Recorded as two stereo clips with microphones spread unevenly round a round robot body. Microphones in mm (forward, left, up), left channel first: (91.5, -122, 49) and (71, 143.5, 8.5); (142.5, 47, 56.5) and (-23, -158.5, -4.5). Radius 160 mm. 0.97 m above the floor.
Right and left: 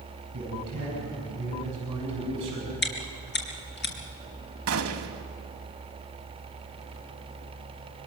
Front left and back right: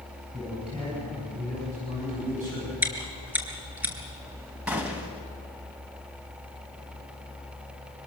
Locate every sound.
0.3 s a man speaking: 155° left, 7 m; by 2.7 s 170° left, 6.5 m
2.8 s chewing: 40° right, 4 m
4.7 s a gunshot: 135° left, 1.2 m